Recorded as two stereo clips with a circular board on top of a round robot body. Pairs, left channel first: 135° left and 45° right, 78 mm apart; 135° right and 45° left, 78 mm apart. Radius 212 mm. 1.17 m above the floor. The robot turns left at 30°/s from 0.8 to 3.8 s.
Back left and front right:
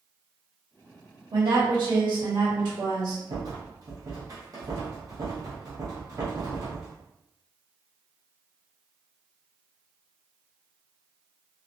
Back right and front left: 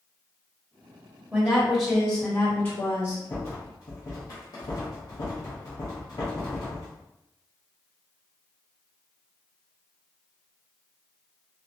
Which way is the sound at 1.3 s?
25° right.